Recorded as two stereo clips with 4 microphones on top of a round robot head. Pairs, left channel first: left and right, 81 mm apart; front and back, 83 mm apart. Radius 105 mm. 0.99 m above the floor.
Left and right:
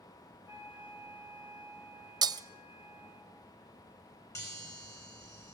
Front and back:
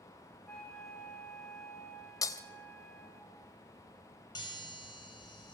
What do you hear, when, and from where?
0.5 s a flute: 85° left, 6 m
2.2 s breaking glass: 55° right, 1.0 m
4.3 s a chime: 40° left, 6 m